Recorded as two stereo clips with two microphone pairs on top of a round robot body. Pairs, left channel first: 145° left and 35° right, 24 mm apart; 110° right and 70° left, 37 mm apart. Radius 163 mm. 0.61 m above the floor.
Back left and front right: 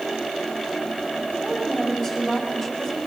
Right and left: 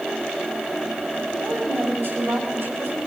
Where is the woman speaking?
60° left, 7.5 m.